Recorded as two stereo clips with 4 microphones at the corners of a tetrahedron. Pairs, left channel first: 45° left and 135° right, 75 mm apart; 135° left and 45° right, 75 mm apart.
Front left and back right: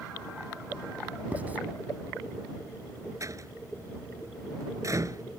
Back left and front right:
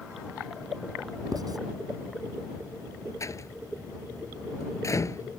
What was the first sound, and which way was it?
Writing, 65° right.